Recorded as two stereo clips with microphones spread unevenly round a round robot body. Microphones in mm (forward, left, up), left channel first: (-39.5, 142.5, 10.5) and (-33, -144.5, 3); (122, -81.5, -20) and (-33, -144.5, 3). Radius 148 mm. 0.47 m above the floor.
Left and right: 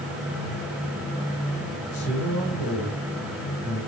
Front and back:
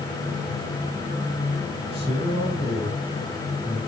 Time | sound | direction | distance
1.9 | a man speaking | 60° left | 3.5 m